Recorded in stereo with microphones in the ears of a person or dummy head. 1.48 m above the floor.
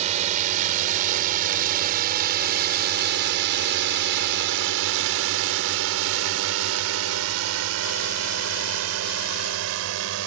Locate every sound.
0.0 s a drone: 40° right (ahead or behind); by 10.3 s 75° right (ahead or behind)